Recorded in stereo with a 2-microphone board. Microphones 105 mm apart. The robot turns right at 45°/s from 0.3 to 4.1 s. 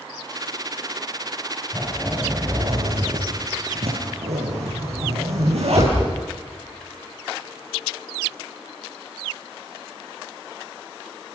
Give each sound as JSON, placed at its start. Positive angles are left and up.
{"t": 1.7, "sound": "a zipper", "side_deg": 20, "distance_m": 8.5}